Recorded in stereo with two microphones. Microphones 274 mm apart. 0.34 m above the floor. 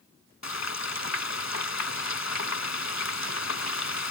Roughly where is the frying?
Left.